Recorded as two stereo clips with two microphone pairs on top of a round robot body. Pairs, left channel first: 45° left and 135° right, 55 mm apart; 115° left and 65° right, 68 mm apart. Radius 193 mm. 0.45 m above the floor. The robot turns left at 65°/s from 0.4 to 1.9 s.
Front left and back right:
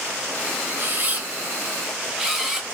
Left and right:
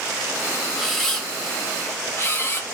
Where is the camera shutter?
145° right, 1.0 m; by 2.6 s 145° left, 1.0 m.